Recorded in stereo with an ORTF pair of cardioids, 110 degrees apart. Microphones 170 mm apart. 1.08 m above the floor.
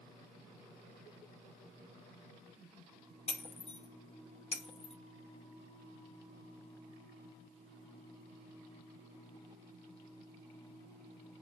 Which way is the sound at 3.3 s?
35° left.